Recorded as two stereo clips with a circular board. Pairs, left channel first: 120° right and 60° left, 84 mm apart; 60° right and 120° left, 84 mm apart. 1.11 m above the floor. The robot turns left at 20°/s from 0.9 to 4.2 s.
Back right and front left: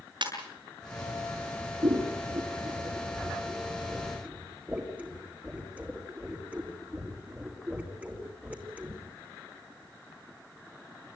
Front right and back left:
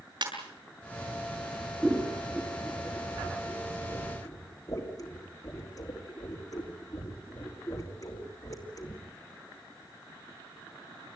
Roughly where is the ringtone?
Left.